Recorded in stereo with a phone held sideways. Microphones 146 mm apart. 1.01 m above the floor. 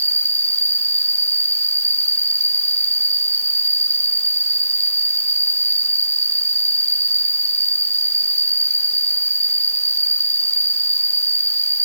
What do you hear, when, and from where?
0.0 s an insect: 50° left (ahead or behind), 3.5 m